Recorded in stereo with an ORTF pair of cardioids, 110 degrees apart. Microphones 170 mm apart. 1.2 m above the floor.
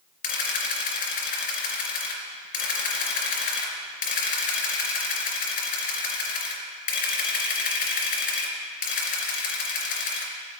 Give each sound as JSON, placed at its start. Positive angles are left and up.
{"t": 0.2, "sound": "a camera shutter", "azimuth_deg": 55, "distance_m": 4.0}